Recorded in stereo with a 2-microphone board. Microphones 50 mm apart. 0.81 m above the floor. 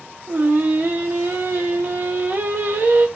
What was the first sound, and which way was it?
Singing, 45° right (ahead or behind).